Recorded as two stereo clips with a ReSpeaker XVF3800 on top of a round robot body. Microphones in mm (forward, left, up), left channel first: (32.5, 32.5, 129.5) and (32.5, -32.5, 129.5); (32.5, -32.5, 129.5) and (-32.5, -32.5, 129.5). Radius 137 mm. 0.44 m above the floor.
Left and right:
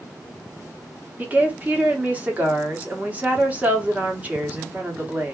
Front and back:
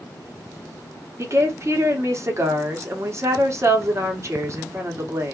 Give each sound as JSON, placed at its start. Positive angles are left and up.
{"t": 1.2, "sound": "a woman speaking", "azimuth_deg": -150, "distance_m": 1.2}